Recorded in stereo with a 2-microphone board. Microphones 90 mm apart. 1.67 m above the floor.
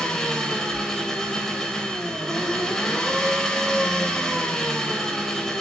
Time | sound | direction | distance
0.0 | an engine running | 5° left (ahead or behind) | 3.5 m